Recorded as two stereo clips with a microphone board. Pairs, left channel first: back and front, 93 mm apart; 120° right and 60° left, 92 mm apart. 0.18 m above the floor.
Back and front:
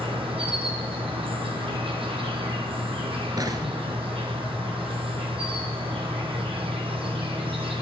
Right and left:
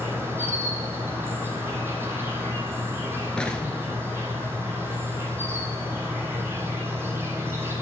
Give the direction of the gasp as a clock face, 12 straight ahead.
I don't hear a gasp.